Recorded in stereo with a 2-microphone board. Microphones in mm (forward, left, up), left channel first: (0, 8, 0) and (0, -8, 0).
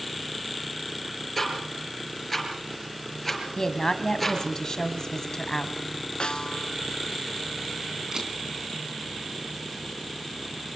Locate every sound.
1.4 s ticking: 10° left (ahead or behind), 4.5 m
3.6 s a woman speaking: 35° left (ahead or behind), 1.9 m
6.2 s a snare drum: 75° left (ahead or behind), 0.5 m
8.1 s a camera shutter: 40° right (ahead or behind), 3.5 m